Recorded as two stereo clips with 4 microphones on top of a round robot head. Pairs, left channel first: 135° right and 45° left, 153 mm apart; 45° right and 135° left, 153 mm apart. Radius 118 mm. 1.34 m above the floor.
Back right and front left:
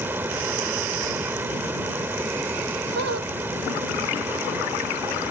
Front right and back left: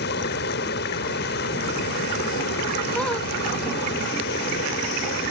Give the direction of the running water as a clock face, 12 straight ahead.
1 o'clock.